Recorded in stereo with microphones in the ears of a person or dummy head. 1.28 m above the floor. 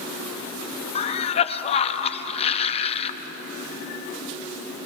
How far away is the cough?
About 0.8 m.